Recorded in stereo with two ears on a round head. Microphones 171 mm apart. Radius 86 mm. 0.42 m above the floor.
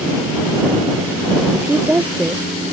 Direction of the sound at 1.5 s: 10° right (ahead or behind).